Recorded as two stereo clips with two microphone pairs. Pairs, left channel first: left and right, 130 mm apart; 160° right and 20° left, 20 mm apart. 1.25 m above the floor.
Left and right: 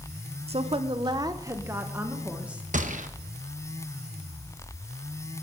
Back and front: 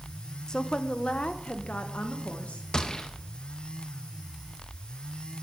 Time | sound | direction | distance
0.5 | a woman speaking | 115° right | 0.7 m
2.7 | a gunshot | 110° right | 1.0 m